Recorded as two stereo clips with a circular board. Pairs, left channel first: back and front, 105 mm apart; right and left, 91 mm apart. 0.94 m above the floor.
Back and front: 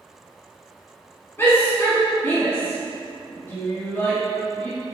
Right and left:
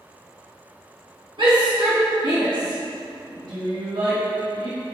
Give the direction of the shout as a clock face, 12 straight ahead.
8 o'clock.